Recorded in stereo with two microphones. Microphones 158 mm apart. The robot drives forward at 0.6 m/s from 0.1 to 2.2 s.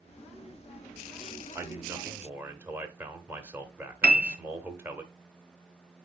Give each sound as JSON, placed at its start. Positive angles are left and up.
{"t": 1.6, "sound": "a man speaking", "side_deg": -15, "distance_m": 0.8}
{"t": 4.0, "sound": "a piano", "side_deg": -70, "distance_m": 0.6}